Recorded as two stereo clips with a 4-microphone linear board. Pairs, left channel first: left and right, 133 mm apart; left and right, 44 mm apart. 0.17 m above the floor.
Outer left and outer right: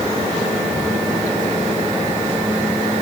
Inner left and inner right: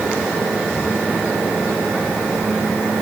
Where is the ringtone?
No ringtone in this recording.